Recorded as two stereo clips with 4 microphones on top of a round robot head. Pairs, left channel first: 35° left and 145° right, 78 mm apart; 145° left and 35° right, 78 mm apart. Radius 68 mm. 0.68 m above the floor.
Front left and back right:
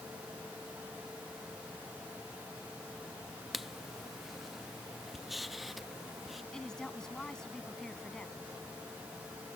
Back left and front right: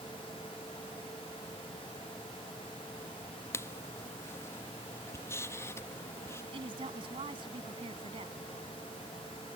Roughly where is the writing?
Behind left.